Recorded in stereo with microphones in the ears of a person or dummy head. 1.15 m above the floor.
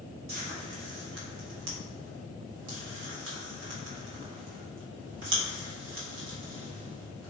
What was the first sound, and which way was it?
Frying, 65° right (ahead or behind).